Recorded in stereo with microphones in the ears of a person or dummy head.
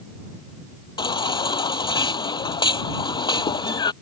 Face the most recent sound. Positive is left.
turn(degrees=25)  # may be behind; listen again after turning